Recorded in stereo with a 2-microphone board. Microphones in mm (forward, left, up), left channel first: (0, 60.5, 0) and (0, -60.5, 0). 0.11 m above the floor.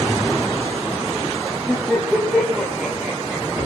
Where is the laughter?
Centre (ahead or behind), 8 m; by 3.7 s 20° right (ahead or behind), 6.5 m.